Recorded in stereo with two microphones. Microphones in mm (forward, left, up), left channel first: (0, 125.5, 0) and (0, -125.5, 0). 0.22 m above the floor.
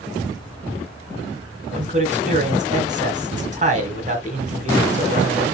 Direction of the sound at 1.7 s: 30° right (ahead or behind).